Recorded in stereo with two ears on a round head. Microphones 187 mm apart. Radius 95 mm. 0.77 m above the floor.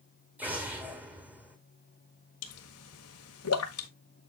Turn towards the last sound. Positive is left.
turn(degrees=80)